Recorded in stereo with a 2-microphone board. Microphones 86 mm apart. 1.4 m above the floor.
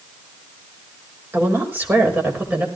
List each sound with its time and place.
1.3 s a woman speaking: 25° right (ahead or behind), 5 m; by 2.7 s 20° right (ahead or behind), 5.5 m